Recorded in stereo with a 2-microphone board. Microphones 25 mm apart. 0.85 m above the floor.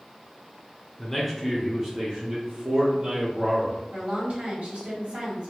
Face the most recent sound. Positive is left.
turn(degrees=-50)  # may be behind; listen again after turning